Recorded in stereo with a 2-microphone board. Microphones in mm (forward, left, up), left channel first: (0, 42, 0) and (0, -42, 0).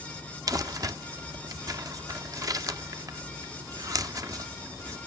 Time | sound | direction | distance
0.5 | crumpling | 45° right (ahead or behind) | 0.8 m